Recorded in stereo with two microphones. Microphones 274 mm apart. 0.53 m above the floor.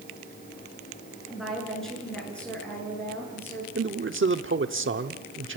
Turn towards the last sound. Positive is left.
turn(degrees=-45)  # may be behind; listen again after turning